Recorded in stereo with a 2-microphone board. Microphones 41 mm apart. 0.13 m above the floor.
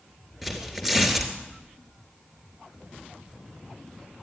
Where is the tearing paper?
5° right (ahead or behind), 3 m.